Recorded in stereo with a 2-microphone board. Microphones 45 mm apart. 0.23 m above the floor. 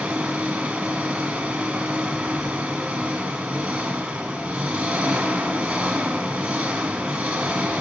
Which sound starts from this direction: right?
An engine running, at 0.0 s.